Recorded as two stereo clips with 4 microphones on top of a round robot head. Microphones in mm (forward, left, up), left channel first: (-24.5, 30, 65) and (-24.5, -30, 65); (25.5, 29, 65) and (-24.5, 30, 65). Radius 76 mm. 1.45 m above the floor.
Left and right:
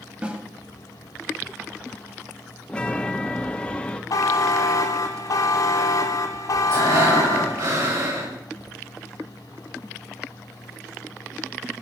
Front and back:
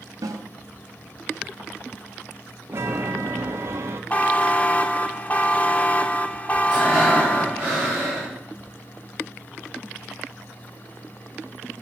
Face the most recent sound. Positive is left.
turn(degrees=-105)